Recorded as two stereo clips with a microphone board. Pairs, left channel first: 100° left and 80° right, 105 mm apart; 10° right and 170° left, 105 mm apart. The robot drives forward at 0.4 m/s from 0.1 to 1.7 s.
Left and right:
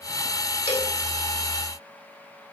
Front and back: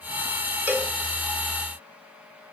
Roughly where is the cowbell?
Left.